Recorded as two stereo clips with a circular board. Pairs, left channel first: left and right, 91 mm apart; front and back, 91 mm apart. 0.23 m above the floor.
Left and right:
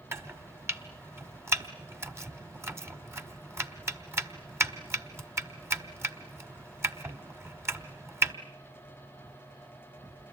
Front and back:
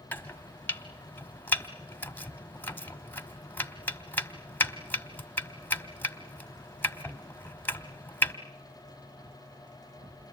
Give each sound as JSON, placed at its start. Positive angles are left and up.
{"t": 0.1, "sound": "chopping", "azimuth_deg": -50, "distance_m": 1.4}